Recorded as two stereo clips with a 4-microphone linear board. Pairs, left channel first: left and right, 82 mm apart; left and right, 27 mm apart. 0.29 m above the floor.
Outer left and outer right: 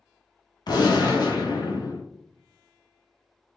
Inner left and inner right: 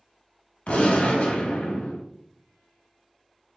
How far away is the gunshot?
About 0.7 m.